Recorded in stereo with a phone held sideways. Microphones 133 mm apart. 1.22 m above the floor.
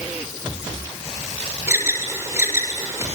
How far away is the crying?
No crying in this recording.